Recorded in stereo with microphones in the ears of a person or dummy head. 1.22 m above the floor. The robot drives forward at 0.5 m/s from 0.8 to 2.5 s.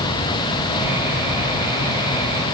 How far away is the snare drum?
I don't hear a snare drum.